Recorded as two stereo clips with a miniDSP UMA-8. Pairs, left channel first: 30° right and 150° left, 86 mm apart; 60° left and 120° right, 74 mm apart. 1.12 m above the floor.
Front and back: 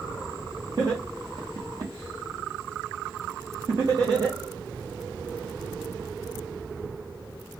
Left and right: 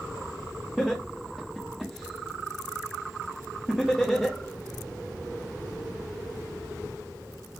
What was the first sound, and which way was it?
Laughter, 150° left.